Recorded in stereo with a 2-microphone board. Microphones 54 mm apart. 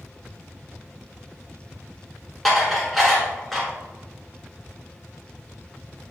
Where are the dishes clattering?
Centre (ahead or behind), 1.3 m.